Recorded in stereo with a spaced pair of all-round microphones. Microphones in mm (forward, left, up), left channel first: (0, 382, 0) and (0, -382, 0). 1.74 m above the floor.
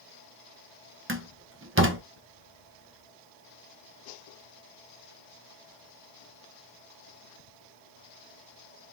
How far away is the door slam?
About 0.6 m.